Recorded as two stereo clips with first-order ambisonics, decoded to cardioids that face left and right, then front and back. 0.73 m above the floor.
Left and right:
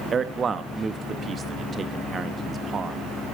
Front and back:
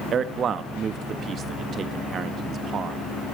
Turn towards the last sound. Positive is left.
turn(degrees=-140)